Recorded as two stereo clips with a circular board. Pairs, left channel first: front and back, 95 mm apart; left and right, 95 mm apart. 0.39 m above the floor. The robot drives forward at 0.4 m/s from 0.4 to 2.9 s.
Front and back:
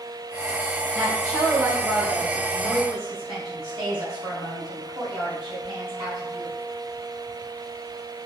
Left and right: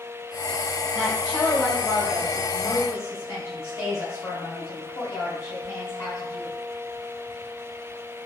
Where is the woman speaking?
130° left, 1.2 m; by 6.5 s 150° left, 1.7 m.